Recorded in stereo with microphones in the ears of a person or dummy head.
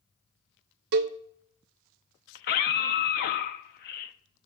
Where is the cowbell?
55° right (ahead or behind), 0.5 m.